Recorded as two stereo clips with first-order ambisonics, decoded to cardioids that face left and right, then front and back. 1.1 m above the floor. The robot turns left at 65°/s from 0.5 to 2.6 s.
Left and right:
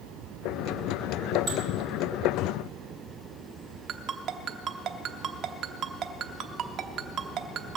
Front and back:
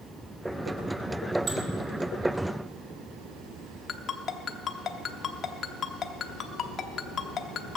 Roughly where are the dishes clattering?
Behind right.